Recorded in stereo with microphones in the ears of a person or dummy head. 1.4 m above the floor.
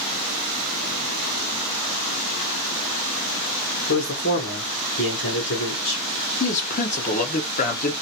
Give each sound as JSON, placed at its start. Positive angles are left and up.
{"t": 3.9, "sound": "a man speaking", "side_deg": 50, "distance_m": 1.5}
{"t": 6.4, "sound": "a man speaking", "side_deg": 40, "distance_m": 0.9}